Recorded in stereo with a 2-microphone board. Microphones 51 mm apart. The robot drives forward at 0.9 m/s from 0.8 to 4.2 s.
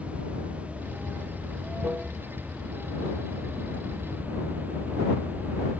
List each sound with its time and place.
0.0 s running water: 25° right (ahead or behind); by 5.8 s 30° right (ahead or behind)